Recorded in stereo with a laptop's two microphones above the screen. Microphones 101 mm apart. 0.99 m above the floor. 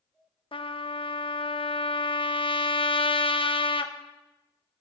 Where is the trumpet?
60° left (ahead or behind), 0.7 m.